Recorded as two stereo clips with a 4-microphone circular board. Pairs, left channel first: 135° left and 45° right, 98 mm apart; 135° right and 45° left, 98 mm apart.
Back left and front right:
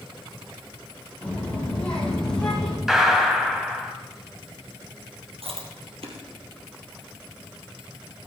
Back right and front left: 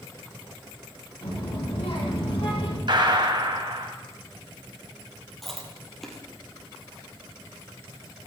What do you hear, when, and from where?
1.2 s a child speaking: 150° right, 7.5 m; by 2.8 s 140° right, 6 m
2.9 s a gunshot: 40° left, 1.9 m
5.4 s chewing: 50° right, 2.5 m